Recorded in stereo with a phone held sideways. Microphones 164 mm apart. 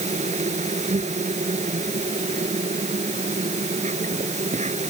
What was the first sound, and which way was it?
An insect, 45° right (ahead or behind).